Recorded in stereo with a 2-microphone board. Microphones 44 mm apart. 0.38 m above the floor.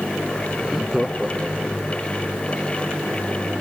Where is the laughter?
Centre (ahead or behind).